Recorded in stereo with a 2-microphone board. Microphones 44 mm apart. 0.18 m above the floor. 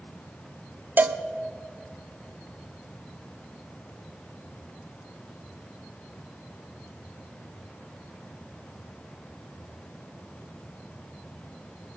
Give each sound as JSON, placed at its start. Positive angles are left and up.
{"t": 1.0, "sound": "a cowbell", "side_deg": -45, "distance_m": 0.6}